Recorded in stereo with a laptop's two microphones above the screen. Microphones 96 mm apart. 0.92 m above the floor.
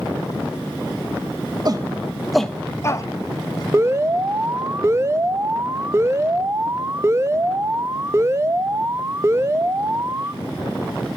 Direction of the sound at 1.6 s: 45° right (ahead or behind).